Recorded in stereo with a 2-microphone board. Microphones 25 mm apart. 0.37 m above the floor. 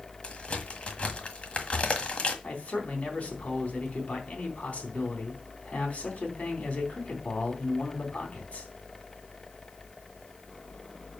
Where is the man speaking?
60° left (ahead or behind), 3.5 m.